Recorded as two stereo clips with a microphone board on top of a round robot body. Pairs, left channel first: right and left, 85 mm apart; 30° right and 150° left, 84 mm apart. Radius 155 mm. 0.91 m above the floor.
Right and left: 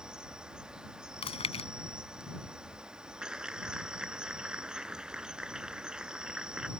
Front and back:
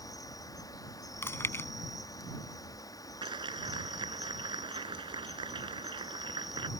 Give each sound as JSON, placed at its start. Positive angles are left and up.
{"t": 0.0, "sound": "an insect", "azimuth_deg": 10}
{"t": 1.2, "sound": "chewing", "azimuth_deg": -95}
{"t": 3.2, "sound": "a clap", "azimuth_deg": 175}